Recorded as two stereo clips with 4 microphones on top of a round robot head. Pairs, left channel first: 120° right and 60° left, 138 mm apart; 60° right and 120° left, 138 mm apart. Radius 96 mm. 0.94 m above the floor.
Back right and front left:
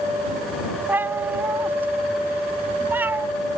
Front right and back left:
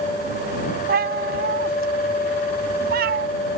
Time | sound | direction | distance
0.9 | a cat meowing | 135° left | ?